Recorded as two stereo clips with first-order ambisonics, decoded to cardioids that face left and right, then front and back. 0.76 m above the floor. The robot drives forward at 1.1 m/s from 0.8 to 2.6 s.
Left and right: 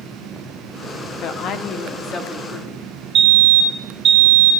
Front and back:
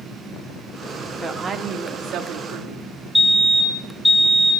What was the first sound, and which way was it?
A woman speaking, 90° left.